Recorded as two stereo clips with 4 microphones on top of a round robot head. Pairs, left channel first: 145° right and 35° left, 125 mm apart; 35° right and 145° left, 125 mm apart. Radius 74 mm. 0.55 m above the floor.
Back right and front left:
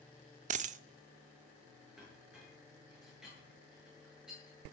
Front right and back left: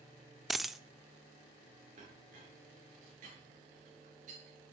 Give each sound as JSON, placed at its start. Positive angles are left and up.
{"t": 0.5, "sound": "a dropped coin", "azimuth_deg": 55, "distance_m": 0.5}
{"t": 2.0, "sound": "a clink", "azimuth_deg": 120, "distance_m": 7.0}